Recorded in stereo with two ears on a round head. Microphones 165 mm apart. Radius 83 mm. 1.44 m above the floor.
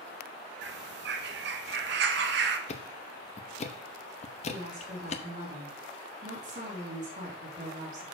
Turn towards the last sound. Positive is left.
turn(degrees=-40)  # may be behind; listen again after turning